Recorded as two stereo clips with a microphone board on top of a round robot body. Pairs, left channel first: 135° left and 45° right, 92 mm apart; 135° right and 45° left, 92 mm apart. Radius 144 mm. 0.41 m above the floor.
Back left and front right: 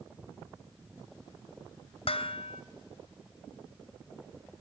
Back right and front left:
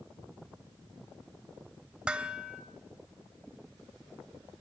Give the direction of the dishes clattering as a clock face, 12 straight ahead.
8 o'clock.